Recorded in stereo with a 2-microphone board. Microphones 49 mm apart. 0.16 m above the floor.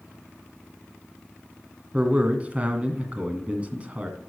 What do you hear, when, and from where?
1.9 s a man speaking: 25° right (ahead or behind), 1.7 m